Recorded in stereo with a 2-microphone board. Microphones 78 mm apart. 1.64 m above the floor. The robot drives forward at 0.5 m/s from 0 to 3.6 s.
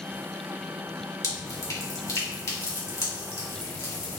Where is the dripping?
45° left (ahead or behind), 1.7 m; by 4.2 s 35° left (ahead or behind), 2.5 m.